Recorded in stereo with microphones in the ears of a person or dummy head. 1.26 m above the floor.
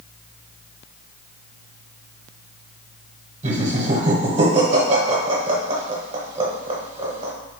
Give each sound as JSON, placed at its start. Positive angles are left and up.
{"t": 3.4, "sound": "laughter", "side_deg": -25, "distance_m": 0.8}